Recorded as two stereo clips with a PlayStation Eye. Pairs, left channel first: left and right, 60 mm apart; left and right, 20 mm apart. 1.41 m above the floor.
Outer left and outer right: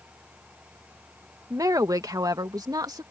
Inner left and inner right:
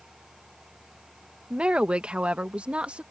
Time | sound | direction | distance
1.5 | a woman speaking | 60° right (ahead or behind) | ?